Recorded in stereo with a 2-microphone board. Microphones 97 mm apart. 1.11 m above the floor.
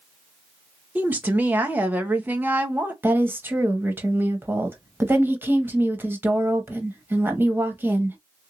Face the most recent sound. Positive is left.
turn(degrees=-20)  # may be behind; listen again after turning